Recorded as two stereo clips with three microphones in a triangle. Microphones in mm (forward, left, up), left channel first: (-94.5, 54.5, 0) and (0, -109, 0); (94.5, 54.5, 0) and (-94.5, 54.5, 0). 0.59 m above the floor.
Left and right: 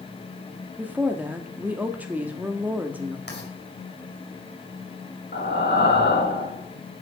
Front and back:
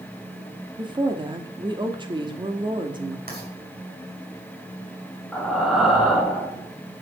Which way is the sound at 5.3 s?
90° left.